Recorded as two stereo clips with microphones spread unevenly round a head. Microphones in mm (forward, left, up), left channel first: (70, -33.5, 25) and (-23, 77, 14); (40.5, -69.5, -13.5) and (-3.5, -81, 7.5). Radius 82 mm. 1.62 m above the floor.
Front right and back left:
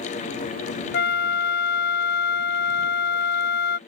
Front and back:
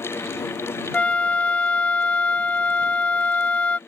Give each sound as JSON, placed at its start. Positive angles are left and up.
{"t": 0.9, "sound": "a flute", "azimuth_deg": -45}